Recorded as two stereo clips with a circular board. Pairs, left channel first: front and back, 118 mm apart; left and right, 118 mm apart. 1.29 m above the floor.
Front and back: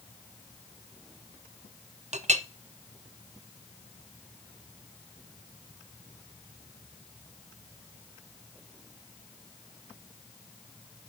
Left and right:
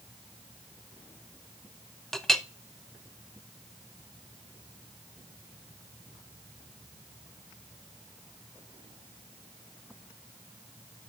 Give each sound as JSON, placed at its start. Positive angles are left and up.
{"t": 2.1, "sound": "a clink", "azimuth_deg": 175, "distance_m": 0.6}